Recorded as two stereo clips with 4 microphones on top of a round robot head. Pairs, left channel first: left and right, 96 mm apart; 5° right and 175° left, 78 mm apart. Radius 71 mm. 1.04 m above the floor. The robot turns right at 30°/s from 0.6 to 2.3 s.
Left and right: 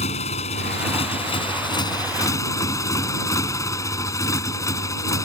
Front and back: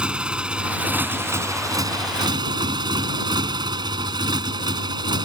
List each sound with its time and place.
0.0 s a motorcycle: 95° left; by 5.2 s 145° left